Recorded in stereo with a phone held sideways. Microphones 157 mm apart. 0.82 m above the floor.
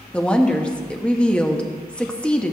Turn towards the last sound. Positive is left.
turn(degrees=5)  # may be behind; listen again after turning